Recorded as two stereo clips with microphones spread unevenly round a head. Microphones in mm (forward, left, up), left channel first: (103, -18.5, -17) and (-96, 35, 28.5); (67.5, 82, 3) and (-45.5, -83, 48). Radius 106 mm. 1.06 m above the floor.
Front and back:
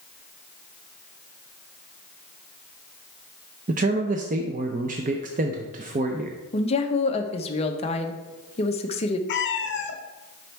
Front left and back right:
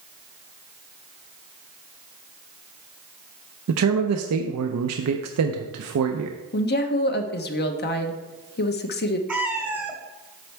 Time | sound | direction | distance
3.7 | a man speaking | 135° right | 0.6 m
6.5 | a woman speaking | 35° left | 1.0 m
9.3 | a cat meowing | 50° right | 1.0 m